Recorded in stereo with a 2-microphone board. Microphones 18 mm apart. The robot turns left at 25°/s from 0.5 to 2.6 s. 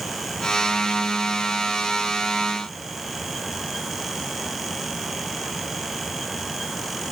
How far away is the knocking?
I don't hear knocking.